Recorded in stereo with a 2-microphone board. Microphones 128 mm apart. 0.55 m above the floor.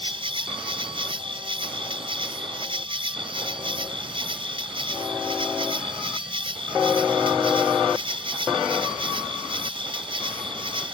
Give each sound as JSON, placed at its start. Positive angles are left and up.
{"t": 0.0, "sound": "an insect", "side_deg": -45}